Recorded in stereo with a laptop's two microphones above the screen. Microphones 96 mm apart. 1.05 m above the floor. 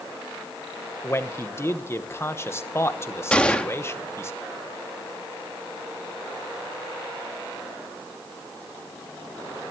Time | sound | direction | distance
1.0 | a man speaking | 25° left (ahead or behind) | 0.9 m
3.3 | a gunshot | 10° left (ahead or behind) | 1.0 m